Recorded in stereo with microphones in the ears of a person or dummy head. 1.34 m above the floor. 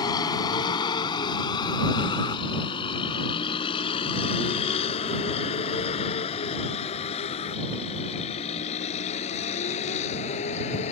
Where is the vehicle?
25° left (ahead or behind); by 10.9 s 40° left (ahead or behind).